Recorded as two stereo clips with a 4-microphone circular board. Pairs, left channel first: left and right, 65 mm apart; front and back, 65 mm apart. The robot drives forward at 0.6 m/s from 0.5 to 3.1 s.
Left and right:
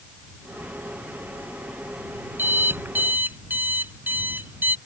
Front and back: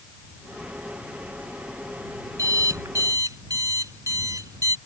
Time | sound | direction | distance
2.4 | an alarm clock | 150° right | ?